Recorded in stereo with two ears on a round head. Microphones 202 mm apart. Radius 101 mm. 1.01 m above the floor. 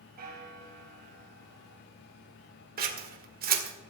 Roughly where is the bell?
Right.